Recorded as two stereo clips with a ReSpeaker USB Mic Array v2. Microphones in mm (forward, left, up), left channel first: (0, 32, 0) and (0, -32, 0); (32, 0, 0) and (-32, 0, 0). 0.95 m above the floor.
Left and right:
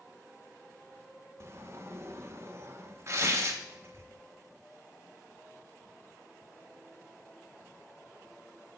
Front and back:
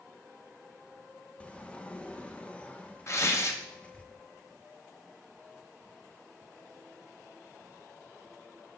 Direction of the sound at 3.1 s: 45° right.